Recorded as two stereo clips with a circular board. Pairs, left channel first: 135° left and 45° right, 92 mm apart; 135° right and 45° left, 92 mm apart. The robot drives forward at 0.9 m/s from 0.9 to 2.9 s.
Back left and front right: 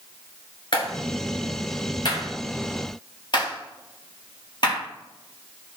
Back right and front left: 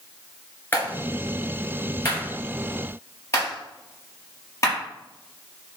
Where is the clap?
160° left, 2.5 m; by 4.8 s 170° left, 4.5 m.